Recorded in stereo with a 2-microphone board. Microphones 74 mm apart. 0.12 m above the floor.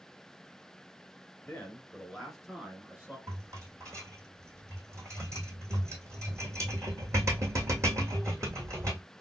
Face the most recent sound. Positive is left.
turn(degrees=-40)  # may be behind; listen again after turning